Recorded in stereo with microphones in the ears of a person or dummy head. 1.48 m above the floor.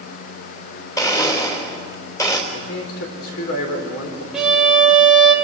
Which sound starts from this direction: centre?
A violin, at 4.3 s.